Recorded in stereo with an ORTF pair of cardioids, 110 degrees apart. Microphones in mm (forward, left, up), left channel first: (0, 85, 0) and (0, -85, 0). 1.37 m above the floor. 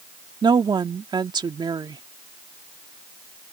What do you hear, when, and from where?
0.4 s a woman speaking: 25° right